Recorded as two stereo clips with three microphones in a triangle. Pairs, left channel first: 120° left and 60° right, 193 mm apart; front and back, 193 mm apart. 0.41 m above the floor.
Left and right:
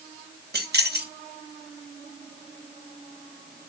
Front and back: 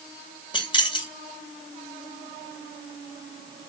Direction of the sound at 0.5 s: 60° right.